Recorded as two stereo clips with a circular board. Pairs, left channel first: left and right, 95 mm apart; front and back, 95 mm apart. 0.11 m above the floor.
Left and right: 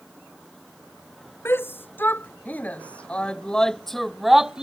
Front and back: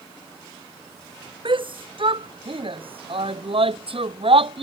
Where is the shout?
155° left; by 4.6 s 175° right.